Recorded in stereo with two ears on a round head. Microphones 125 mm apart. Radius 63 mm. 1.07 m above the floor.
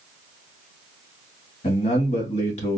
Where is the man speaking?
50° left (ahead or behind), 1.5 m.